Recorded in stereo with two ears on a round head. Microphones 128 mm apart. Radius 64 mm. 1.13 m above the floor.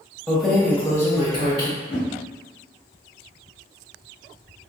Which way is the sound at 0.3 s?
5° right (ahead or behind).